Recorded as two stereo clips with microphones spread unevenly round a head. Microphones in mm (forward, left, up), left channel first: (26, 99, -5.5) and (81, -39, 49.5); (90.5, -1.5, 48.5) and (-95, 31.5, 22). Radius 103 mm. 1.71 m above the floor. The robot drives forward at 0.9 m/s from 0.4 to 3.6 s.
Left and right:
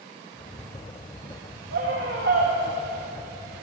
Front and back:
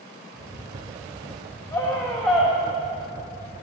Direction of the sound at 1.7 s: 80° right.